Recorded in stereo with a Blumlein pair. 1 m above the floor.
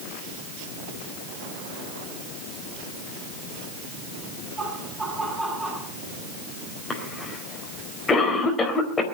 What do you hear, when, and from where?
4.6 s laughter: 15° right, 9 m
6.9 s a cough: 15° left, 4 m